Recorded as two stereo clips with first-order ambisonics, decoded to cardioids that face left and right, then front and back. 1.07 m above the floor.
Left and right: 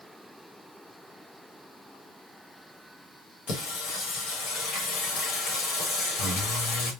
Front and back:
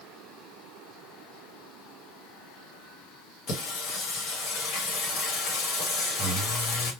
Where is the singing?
45° left, 1.0 m.